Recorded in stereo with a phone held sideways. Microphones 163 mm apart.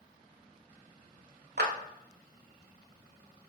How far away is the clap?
About 0.8 m.